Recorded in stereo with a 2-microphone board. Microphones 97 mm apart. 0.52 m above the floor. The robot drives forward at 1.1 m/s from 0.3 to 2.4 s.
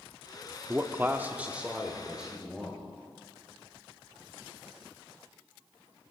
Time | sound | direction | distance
0.7 | a man speaking | 20° right (ahead or behind) | 0.7 m